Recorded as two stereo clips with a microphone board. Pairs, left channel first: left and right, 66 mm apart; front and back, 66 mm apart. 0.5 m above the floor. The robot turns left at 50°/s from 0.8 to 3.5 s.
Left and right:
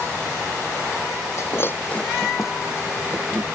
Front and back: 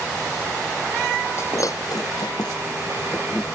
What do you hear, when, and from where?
1.4 s breaking glass: 50° left; by 3.4 s 55° right